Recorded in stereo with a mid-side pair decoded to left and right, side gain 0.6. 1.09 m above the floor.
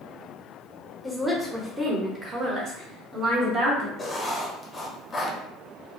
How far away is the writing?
About 0.7 m.